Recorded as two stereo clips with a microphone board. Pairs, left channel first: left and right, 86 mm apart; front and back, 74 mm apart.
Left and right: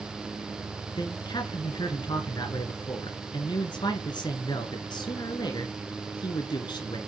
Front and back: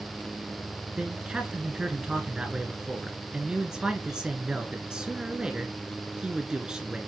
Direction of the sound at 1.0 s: 100° left.